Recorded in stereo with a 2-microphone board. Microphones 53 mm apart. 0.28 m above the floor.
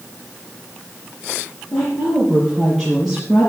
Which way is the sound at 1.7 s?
15° left (ahead or behind).